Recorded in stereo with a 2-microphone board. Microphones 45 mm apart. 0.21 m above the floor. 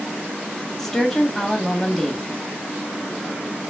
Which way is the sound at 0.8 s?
10° left (ahead or behind).